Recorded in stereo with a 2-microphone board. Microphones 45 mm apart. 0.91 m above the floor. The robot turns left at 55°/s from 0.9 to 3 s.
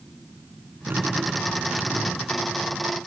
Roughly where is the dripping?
Behind right.